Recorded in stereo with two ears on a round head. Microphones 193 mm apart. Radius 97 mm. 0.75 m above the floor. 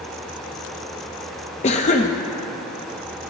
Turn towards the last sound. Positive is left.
turn(degrees=30)  # may be behind; listen again after turning